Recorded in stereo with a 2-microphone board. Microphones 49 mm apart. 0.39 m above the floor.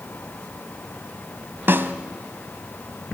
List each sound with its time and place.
1.7 s a snare drum: 50° right (ahead or behind), 1.1 m